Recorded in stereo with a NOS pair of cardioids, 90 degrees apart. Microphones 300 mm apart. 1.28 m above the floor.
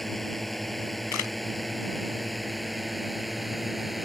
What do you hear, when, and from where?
0.0 s a drone: straight ahead
1.1 s a camera shutter: 70° left